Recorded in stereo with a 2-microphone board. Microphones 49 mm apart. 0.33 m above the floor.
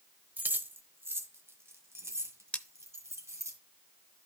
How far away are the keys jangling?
About 1.0 m.